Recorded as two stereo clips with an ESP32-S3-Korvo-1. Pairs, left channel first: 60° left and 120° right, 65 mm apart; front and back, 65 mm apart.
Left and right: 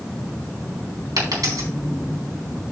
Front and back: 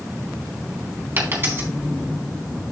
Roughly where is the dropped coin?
Behind right.